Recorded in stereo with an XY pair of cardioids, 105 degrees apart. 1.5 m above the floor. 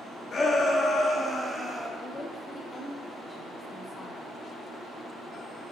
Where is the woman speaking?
25° left, 0.8 m.